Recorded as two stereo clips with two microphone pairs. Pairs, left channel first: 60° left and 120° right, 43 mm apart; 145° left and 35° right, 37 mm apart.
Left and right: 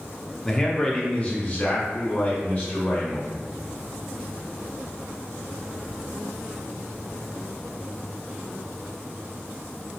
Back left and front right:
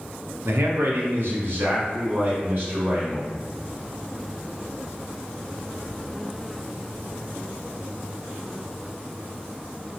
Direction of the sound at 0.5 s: 30° right.